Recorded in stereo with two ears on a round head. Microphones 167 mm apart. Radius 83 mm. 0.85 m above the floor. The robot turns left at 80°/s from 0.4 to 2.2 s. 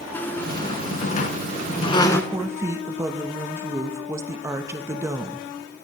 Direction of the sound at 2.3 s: 15° right (ahead or behind).